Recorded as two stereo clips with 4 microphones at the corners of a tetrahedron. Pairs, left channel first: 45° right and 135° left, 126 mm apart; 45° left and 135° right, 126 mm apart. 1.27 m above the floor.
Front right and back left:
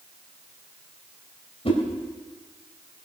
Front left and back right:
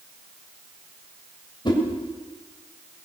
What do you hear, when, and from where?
1.6 s a whoosh: 5° right, 2.5 m